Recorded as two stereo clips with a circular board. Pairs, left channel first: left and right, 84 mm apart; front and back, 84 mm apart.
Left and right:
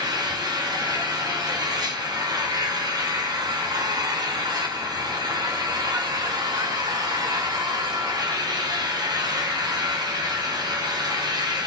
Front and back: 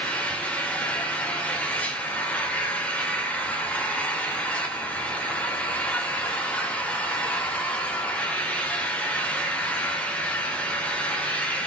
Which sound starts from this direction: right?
An engine running, at 0.0 s.